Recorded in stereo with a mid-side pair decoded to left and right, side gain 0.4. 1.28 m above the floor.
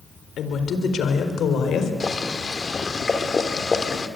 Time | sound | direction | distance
0.4 | a woman speaking | 70° left | 4 m
2.0 | boiling | 30° left | 2.5 m